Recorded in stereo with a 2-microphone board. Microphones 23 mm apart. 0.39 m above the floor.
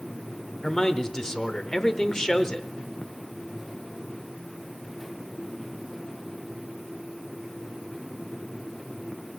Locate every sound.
0.6 s a man speaking: 25° left (ahead or behind), 0.8 m